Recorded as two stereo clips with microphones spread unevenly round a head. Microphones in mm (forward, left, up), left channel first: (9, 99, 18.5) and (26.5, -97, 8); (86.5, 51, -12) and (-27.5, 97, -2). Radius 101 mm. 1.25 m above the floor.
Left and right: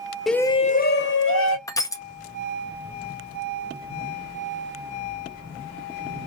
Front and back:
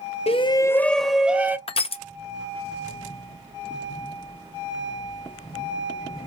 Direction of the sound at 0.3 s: 5° left.